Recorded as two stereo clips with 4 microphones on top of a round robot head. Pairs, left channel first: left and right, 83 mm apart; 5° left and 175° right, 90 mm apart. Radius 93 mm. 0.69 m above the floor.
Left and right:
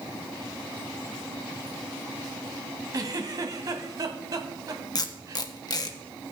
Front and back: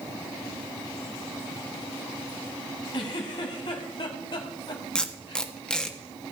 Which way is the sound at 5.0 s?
85° left.